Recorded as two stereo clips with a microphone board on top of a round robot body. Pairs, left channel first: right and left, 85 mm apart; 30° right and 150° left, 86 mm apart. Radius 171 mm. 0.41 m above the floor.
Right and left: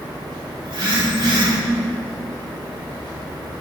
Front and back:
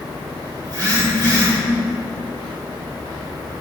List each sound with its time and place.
0.7 s a phone buzzing: 115° left, 3 m